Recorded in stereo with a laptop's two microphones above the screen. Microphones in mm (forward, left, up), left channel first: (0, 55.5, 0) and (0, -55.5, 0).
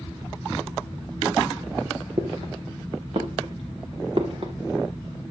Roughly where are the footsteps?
Right.